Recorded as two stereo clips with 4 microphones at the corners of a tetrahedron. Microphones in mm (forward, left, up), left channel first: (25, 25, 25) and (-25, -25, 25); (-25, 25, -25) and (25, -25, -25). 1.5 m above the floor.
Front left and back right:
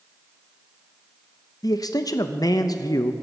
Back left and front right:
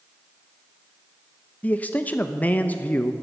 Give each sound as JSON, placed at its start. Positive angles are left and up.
{"t": 1.6, "sound": "a man speaking", "azimuth_deg": 70, "distance_m": 0.6}